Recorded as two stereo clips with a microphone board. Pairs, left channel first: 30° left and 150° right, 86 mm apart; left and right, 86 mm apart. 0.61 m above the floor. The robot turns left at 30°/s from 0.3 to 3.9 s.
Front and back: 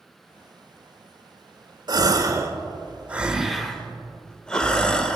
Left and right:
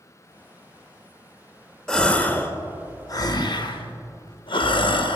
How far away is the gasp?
About 0.6 m.